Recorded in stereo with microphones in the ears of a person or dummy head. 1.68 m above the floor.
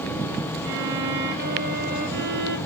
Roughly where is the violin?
Right.